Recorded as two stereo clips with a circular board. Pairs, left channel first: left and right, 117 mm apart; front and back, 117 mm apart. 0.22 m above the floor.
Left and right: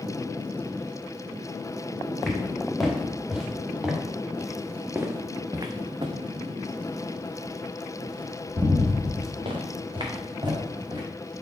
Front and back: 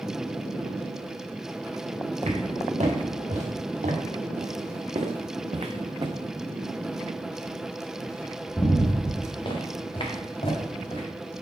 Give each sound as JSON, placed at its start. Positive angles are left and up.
{"t": 2.2, "sound": "footsteps", "azimuth_deg": 180, "distance_m": 3.0}